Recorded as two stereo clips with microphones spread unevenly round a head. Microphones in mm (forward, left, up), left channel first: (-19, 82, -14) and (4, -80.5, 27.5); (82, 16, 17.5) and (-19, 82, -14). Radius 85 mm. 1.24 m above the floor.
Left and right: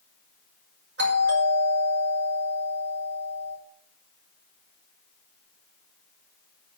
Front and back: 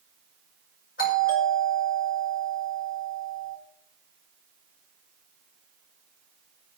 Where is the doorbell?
50° right, 6 m.